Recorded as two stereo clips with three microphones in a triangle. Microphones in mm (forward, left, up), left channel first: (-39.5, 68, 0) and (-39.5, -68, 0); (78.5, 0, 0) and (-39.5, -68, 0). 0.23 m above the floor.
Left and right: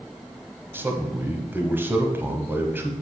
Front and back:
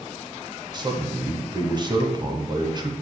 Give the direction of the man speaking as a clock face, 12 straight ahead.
5 o'clock.